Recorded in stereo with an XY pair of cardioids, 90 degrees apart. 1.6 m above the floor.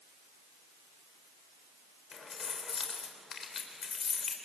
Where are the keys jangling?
50° left, 3.5 m.